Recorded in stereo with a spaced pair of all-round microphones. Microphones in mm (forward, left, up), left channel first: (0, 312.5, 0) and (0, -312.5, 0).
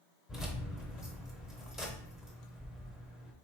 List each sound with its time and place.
0.3 s keys jangling: centre (ahead or behind), 0.6 m